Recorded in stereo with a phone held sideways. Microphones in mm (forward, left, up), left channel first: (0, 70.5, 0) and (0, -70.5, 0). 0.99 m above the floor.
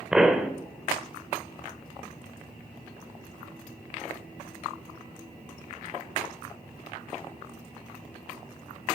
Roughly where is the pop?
Centre.